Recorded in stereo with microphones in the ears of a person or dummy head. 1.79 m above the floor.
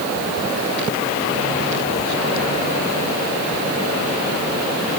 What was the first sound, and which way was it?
Only background noise.